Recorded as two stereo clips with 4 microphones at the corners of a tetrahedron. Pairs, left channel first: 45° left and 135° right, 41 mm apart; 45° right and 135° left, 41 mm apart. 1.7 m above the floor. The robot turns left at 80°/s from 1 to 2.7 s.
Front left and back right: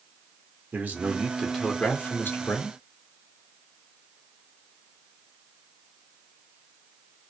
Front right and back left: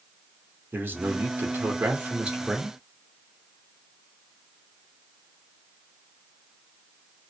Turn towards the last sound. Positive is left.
turn(degrees=40)